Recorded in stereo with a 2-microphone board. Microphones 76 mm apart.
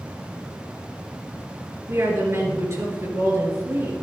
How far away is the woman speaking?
About 3.5 m.